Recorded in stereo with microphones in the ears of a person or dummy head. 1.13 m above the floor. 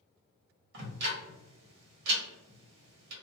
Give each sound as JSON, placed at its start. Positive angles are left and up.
{"t": 0.7, "sound": "ticking", "side_deg": -70, "distance_m": 1.3}